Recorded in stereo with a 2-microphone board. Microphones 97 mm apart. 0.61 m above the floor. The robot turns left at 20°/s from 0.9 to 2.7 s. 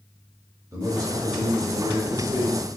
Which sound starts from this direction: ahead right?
A man speaking, at 0.7 s.